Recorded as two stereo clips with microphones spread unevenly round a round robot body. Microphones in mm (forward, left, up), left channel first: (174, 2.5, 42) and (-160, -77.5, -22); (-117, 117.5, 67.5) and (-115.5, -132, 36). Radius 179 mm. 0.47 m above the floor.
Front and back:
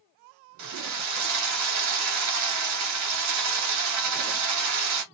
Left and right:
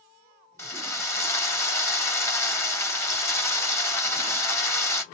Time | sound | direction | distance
0.6 | a drill | 175° left | 2 m